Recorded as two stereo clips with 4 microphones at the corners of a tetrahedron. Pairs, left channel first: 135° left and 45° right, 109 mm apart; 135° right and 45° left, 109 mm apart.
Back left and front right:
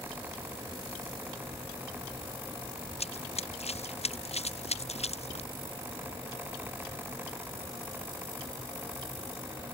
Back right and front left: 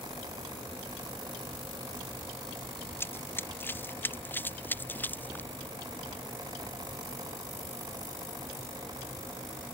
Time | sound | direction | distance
3.0 | running footsteps | 155° left | ?